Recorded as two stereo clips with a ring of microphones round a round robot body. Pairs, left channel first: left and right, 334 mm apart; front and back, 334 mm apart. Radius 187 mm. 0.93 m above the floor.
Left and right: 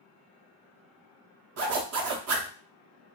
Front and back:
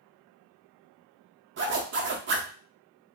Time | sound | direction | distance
1.6 | a zipper | 130° right | 0.6 m